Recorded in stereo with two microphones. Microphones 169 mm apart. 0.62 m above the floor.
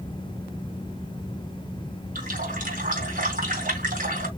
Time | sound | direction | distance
2.1 | a running tap | 65° right (ahead or behind) | 3 m